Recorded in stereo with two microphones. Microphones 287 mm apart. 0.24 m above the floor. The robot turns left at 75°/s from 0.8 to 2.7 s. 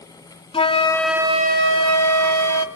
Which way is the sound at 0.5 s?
20° left.